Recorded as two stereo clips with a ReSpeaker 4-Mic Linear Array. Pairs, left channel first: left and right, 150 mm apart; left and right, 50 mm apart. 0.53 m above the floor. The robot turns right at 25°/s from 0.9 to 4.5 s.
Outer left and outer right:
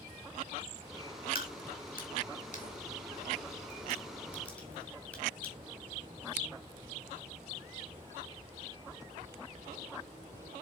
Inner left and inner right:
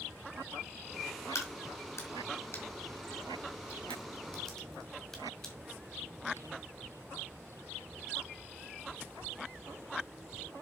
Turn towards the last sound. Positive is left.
turn(degrees=10)  # may be behind; listen again after turning